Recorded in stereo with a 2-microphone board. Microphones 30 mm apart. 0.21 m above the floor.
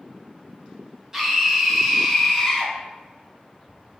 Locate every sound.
1.1 s a scream: 15° right (ahead or behind), 1.4 m; by 2.7 s 5° left (ahead or behind), 1.3 m